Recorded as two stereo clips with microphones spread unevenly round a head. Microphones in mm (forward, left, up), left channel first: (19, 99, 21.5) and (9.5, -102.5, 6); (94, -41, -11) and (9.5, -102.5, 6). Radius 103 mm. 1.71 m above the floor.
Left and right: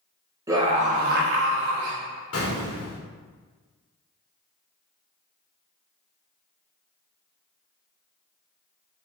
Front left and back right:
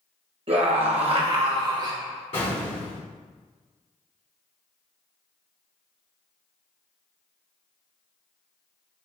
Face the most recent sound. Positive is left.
turn(degrees=90)